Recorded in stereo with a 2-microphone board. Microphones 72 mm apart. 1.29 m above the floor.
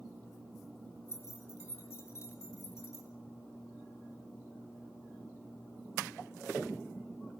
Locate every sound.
1.1 s keys jangling: 40° left (ahead or behind), 5 m